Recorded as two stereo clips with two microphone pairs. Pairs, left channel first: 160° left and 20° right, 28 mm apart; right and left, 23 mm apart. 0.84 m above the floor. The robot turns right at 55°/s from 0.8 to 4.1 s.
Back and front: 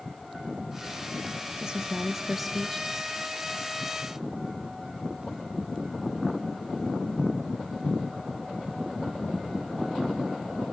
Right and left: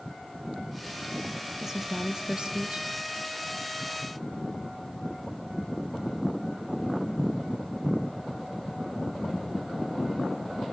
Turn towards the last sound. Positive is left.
turn(degrees=150)